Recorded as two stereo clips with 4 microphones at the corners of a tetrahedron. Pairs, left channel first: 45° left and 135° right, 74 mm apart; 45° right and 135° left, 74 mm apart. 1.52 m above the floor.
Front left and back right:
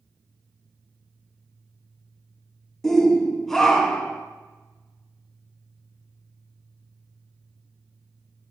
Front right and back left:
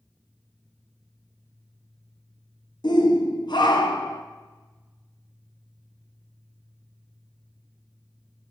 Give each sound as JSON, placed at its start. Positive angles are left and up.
{"t": 2.8, "sound": "a shout", "azimuth_deg": -40, "distance_m": 1.3}